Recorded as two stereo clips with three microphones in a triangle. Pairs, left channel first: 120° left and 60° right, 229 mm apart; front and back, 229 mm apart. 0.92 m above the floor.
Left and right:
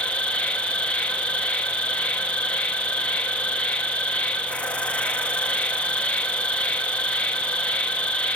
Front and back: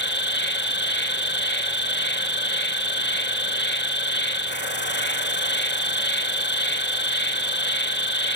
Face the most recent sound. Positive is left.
turn(degrees=35)